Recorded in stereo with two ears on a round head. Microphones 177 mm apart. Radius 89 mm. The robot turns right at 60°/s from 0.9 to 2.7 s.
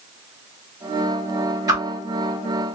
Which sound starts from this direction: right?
A whoosh, at 1.7 s.